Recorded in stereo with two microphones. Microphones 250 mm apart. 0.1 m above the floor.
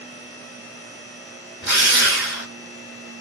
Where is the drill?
50° left (ahead or behind), 1.1 m.